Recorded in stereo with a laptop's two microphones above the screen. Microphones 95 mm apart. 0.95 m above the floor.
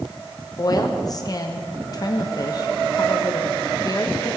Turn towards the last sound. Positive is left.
turn(degrees=40)  # may be behind; listen again after turning